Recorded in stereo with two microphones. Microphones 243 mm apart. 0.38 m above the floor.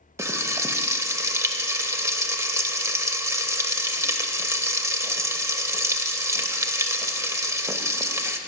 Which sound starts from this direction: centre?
Frying, at 0.2 s.